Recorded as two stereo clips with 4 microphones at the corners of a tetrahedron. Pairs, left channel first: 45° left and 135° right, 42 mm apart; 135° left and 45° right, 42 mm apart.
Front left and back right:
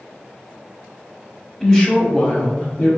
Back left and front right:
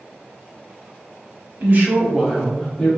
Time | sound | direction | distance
1.6 | a woman speaking | 25° right | 1.2 m